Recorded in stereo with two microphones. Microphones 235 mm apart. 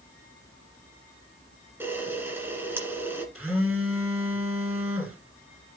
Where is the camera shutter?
10° right (ahead or behind), 1.8 m.